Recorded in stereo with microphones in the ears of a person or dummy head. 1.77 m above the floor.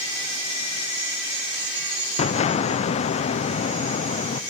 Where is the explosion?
35° left (ahead or behind), 0.8 m.